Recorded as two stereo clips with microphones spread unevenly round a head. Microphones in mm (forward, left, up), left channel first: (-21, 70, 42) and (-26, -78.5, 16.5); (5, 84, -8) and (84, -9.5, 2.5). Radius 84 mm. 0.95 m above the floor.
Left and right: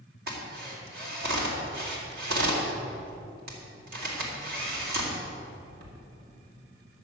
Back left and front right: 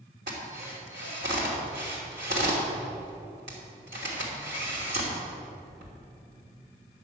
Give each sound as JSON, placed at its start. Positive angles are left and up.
{"t": 0.3, "sound": "a drill", "azimuth_deg": -95, "distance_m": 3.0}